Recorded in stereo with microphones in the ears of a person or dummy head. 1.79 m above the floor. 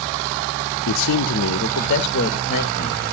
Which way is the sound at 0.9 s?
70° left (ahead or behind).